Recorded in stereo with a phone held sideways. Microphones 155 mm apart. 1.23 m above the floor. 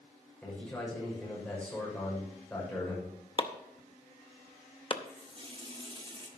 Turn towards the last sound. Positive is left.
turn(degrees=-35)  # may be behind; listen again after turning